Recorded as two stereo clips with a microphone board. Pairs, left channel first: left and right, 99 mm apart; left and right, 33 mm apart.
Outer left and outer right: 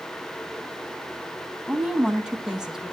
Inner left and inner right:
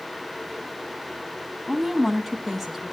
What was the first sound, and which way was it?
A woman speaking, 10° right (ahead or behind).